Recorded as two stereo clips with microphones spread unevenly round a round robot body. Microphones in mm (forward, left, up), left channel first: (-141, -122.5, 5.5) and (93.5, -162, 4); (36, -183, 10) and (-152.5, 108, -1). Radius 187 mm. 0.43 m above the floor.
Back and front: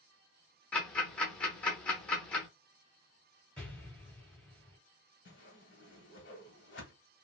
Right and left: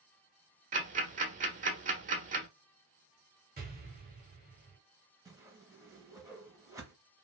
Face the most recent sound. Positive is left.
turn(degrees=-160)